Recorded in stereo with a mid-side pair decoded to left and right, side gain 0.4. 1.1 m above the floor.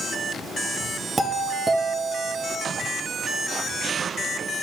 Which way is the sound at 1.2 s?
30° right.